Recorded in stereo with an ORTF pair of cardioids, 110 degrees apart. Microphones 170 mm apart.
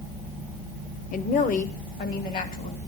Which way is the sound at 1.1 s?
50° left.